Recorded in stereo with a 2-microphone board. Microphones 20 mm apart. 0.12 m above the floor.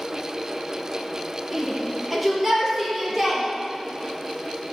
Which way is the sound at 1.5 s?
Centre (ahead or behind).